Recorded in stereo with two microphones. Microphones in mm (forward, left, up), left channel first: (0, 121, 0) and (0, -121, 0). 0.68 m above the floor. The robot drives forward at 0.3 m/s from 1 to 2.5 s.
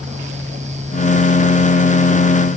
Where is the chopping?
I don't hear chopping.